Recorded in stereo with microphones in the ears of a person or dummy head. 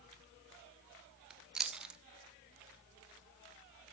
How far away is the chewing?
About 0.5 m.